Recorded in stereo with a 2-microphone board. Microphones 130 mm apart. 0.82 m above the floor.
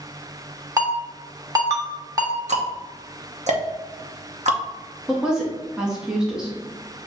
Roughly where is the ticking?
Right.